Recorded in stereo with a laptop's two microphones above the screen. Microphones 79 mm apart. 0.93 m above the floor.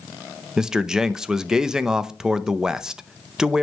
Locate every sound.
0.6 s a man speaking: 10° right (ahead or behind), 0.7 m